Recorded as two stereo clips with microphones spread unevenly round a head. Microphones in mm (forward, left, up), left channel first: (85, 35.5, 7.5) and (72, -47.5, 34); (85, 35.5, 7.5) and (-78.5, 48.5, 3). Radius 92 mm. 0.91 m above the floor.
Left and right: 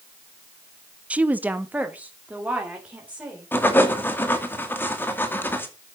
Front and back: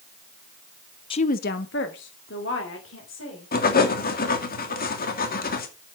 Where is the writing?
25° left, 2.5 m.